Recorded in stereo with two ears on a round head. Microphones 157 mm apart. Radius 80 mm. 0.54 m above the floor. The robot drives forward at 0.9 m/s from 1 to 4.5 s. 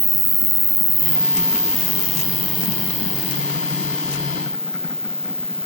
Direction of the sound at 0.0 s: 15° right (ahead or behind).